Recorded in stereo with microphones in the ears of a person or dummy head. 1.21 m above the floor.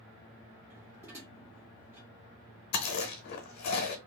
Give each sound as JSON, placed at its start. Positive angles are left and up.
{"t": 0.7, "sound": "dishes clattering", "side_deg": -15, "distance_m": 1.4}
{"t": 2.7, "sound": "chewing", "side_deg": 55, "distance_m": 0.6}